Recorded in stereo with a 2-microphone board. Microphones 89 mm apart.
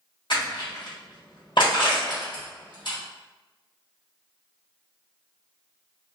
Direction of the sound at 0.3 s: 65° left (ahead or behind).